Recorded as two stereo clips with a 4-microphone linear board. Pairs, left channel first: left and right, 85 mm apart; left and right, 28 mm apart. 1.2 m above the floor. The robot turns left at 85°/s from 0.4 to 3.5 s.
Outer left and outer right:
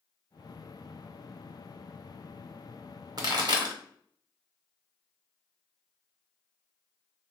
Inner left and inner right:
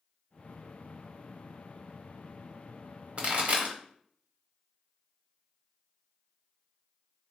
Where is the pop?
50° right (ahead or behind), 0.9 m; by 3.8 s 55° right (ahead or behind), 0.9 m.